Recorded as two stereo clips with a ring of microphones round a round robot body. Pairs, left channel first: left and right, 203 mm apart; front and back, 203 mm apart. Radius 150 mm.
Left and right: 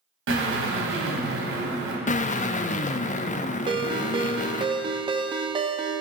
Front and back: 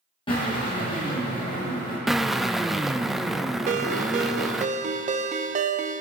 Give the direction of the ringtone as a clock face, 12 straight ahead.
5 o'clock.